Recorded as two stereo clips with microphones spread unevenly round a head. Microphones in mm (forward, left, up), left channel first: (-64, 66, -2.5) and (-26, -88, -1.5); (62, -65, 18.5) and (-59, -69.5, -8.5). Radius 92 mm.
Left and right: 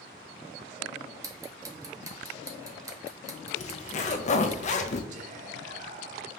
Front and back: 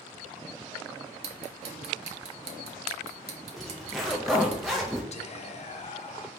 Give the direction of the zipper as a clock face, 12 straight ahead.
8 o'clock.